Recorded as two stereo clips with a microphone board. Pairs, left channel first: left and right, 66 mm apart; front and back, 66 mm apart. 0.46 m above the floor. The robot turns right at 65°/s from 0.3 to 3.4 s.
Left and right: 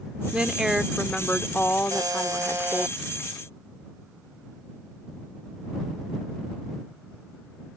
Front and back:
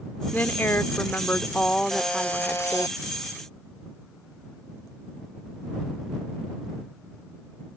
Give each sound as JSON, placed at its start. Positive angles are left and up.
{"t": 0.3, "sound": "a woman speaking", "azimuth_deg": -35}
{"t": 1.9, "sound": "a buzzer", "azimuth_deg": -90}